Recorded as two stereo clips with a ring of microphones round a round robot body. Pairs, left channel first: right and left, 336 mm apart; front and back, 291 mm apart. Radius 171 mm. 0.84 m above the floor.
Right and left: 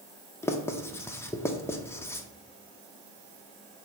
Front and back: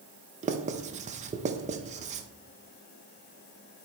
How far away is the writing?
About 0.6 m.